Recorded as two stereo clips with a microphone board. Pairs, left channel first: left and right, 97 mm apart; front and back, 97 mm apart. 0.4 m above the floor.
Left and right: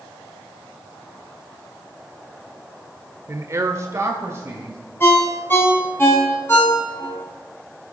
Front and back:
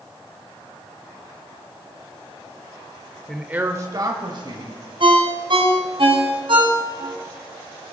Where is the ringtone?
155° left, 2.0 m.